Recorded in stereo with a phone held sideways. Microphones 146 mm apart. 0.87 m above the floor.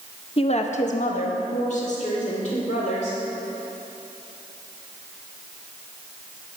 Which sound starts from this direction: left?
A woman speaking, at 0.4 s.